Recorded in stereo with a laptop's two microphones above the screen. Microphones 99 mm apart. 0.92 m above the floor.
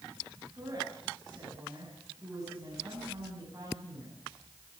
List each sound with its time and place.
0.5 s a woman speaking: 30° right (ahead or behind), 8 m